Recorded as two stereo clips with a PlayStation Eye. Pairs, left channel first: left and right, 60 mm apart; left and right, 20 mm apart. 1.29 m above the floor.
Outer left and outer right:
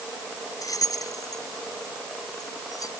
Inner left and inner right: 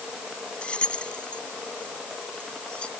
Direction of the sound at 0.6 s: 85° left.